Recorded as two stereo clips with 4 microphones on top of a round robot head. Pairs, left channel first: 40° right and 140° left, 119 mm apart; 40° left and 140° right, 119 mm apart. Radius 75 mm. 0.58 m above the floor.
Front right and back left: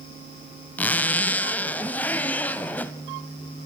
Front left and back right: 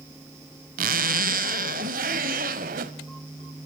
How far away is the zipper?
About 0.9 m.